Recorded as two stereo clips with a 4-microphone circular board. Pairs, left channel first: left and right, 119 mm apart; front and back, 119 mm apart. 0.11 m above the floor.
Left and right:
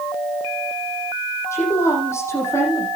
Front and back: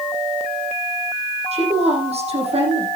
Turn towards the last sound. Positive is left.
turn(degrees=155)